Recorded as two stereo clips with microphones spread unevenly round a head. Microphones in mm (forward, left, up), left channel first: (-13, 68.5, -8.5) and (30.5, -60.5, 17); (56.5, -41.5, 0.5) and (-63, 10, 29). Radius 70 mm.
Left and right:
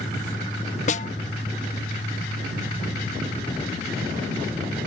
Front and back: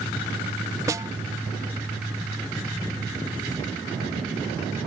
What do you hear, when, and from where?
0.9 s a snare drum: 125° left